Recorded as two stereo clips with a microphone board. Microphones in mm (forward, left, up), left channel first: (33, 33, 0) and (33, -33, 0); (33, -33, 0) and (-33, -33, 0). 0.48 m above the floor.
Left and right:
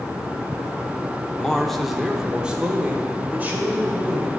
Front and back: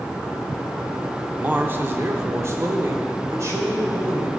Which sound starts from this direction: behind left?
A man speaking, at 1.4 s.